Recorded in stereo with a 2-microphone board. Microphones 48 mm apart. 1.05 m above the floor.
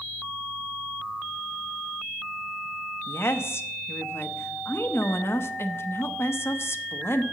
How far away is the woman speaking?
About 0.8 m.